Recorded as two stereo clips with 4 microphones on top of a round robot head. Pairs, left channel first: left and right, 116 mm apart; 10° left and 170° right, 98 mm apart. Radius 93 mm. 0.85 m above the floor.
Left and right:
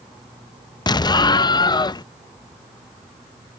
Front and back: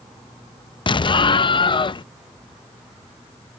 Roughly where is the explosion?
Ahead left.